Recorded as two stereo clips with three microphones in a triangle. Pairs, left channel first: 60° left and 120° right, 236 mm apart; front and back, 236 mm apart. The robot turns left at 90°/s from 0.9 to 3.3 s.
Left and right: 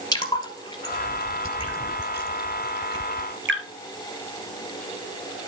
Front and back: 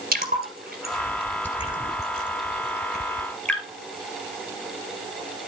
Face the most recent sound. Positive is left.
turn(degrees=-85)